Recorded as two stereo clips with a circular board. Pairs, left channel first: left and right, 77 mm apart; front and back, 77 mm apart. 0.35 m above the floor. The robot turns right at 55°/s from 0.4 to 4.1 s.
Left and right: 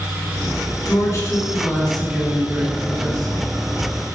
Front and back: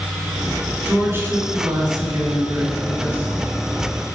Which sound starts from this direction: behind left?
A woman speaking, at 0.8 s.